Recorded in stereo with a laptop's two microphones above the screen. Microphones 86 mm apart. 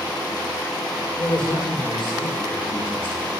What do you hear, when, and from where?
1.2 s a man speaking: 70° left (ahead or behind), 3.5 m; by 3.3 s 65° left (ahead or behind), 1.7 m